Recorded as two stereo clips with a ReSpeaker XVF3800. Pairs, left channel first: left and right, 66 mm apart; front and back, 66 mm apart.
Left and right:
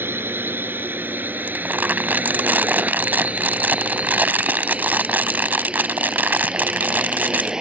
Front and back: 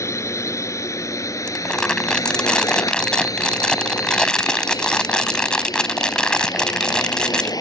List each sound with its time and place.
0.0 s a drone: 35° right; by 7.6 s 10° right
1.5 s crumpling: 65° right